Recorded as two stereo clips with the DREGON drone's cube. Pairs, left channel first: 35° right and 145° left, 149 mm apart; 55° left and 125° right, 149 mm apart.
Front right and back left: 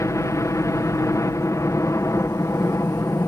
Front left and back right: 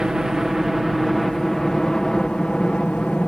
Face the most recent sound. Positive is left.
turn(degrees=-15)